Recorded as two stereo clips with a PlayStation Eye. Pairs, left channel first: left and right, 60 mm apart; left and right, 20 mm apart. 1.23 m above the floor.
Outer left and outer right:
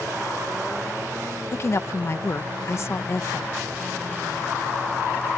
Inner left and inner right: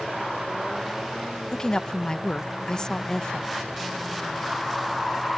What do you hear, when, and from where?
1.5 s a woman speaking: 45° left (ahead or behind)